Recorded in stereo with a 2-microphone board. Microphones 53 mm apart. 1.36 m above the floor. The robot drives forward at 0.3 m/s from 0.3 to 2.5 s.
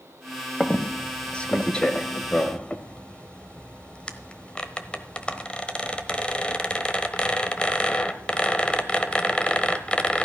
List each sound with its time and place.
0.6 s a squeak: 15° left (ahead or behind), 1.3 m; by 10.2 s 20° left (ahead or behind), 1.1 m